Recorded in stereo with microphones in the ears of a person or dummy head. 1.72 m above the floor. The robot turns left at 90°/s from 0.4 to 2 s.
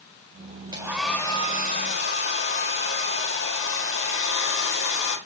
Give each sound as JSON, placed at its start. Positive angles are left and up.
{"t": 0.7, "sound": "a hair dryer", "azimuth_deg": -155, "distance_m": 4.5}